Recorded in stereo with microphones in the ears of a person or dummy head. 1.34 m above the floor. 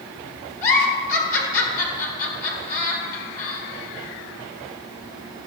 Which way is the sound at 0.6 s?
45° left (ahead or behind).